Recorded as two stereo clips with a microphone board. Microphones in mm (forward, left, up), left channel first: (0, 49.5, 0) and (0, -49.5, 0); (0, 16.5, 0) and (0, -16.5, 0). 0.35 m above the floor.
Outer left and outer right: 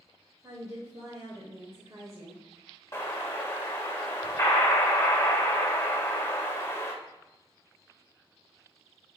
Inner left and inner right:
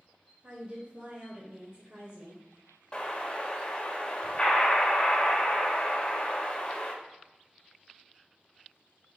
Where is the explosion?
25° left (ahead or behind), 1.5 m.